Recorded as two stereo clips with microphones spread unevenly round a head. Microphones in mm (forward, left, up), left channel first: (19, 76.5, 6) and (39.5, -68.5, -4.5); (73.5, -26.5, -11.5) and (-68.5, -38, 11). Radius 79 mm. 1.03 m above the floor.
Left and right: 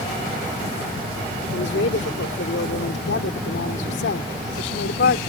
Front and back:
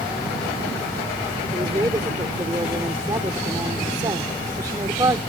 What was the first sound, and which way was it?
A woman speaking, 115° left.